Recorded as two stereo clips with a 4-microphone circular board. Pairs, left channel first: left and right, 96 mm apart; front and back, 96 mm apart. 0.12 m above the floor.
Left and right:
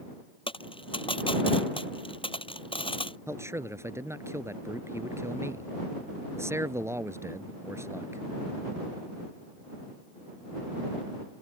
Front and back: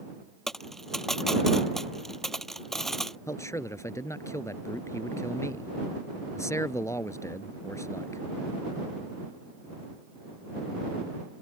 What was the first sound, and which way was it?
A dropped coin, 85° left.